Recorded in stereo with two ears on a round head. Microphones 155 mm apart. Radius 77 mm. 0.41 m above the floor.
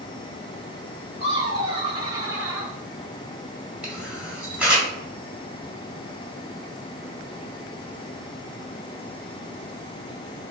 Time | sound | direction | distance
1.2 | laughter | 40° right (ahead or behind) | 1.8 m
3.8 | a camera shutter | 5° right (ahead or behind) | 1.1 m